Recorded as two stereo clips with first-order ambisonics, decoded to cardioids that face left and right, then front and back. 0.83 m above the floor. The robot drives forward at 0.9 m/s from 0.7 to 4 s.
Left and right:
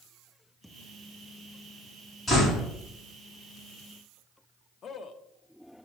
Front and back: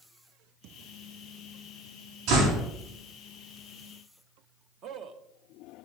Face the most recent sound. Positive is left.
turn(degrees=145)